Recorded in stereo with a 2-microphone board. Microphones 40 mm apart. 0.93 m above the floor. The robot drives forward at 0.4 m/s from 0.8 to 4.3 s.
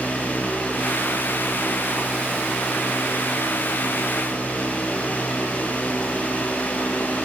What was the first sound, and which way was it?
Only background noise.